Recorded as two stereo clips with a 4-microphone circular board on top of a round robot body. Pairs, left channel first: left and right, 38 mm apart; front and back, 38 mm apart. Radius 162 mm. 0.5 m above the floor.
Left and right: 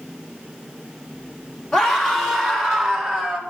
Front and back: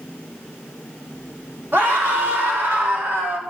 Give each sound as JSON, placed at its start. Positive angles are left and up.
{"t": 1.7, "sound": "a scream", "azimuth_deg": 170, "distance_m": 3.0}